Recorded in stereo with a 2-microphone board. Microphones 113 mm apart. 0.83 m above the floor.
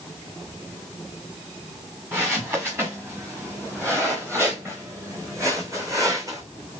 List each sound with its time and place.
2.1 s footsteps: 20° right (ahead or behind), 4 m; by 6.4 s 30° right (ahead or behind), 2 m